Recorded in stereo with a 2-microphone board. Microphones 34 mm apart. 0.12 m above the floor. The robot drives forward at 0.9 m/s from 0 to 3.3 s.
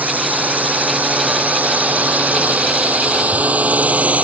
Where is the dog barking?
I don't hear a dog barking.